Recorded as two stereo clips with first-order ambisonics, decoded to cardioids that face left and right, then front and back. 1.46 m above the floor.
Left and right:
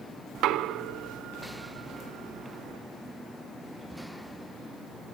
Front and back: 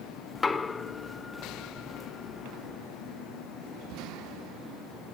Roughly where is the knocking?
Right.